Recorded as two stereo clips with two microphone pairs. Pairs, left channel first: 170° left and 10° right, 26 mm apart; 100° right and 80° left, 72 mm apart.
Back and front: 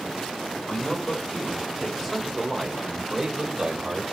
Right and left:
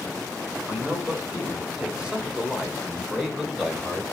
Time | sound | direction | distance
0.7 | a man speaking | 135° left | 1.5 m